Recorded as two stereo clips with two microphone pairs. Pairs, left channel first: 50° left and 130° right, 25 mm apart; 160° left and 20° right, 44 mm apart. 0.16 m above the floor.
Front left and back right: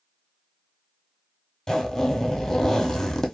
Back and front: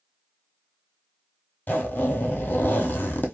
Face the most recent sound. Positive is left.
turn(degrees=115)